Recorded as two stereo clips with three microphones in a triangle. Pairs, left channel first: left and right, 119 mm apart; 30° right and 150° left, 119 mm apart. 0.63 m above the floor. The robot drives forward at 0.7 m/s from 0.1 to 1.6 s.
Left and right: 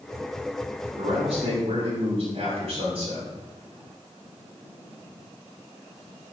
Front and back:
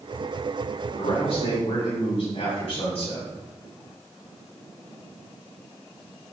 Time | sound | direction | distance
1.0 | a man speaking | 50° right | 5 m